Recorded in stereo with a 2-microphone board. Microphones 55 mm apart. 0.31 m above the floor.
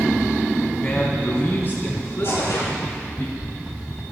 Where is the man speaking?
25° left (ahead or behind), 3 m; by 3.2 s 45° left (ahead or behind), 5.5 m.